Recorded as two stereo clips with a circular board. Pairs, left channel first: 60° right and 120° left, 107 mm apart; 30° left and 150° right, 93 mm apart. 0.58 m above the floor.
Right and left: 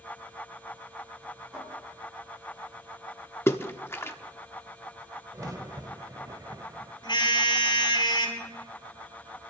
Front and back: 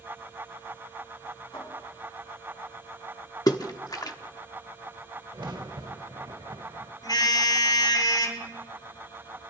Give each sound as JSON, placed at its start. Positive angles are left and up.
{"t": 1.5, "sound": "a cupboard door", "azimuth_deg": 45, "distance_m": 6.0}
{"t": 3.5, "sound": "a splash", "azimuth_deg": 0, "distance_m": 0.9}
{"t": 5.3, "sound": "a crack", "azimuth_deg": 175, "distance_m": 1.0}
{"t": 7.0, "sound": "a car horn", "azimuth_deg": -15, "distance_m": 7.0}